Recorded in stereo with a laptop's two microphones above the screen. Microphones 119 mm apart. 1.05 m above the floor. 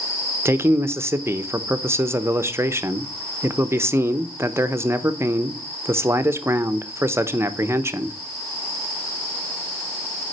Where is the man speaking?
20° right (ahead or behind), 0.8 m.